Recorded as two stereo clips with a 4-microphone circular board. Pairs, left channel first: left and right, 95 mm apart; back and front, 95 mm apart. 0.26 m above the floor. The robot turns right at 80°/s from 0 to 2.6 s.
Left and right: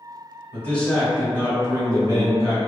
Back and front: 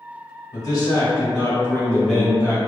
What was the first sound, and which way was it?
A man speaking, 145° left.